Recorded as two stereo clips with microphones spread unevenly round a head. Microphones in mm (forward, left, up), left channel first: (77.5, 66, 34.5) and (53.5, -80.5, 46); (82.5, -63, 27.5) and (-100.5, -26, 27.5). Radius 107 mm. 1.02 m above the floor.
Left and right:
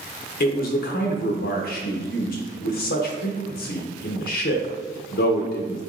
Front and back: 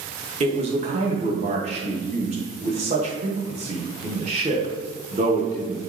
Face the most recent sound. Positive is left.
turn(degrees=110)